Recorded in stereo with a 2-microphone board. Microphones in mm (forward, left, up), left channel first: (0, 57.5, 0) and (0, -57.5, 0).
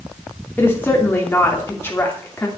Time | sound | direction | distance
0.6 | a woman speaking | 20° left (ahead or behind) | 3 m